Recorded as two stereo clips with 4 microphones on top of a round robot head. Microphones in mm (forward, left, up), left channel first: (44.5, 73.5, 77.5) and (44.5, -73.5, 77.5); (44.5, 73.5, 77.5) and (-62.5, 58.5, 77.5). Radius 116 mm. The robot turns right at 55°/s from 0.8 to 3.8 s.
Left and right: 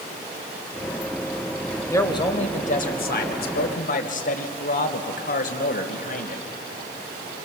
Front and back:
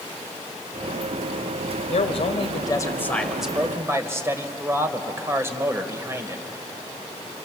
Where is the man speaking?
20° left, 2.5 m; by 6.4 s 120° left, 2.5 m.